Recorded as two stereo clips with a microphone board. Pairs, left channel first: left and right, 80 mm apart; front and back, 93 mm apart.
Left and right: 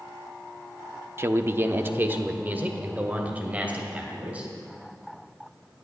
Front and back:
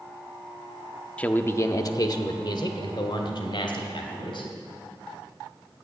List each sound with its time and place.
1.2 s a man speaking: 65° right, 0.7 m; by 4.5 s 20° right, 3 m